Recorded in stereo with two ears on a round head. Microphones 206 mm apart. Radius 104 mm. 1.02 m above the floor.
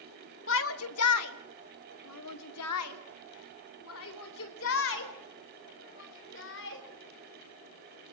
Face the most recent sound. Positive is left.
turn(degrees=60)  # may be behind; listen again after turning